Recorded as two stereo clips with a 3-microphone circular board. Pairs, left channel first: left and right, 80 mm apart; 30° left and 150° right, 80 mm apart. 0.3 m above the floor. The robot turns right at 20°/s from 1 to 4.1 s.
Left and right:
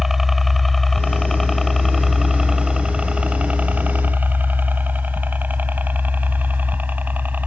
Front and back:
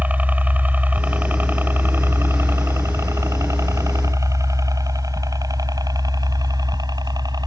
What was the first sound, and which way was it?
A helicopter, 170° right.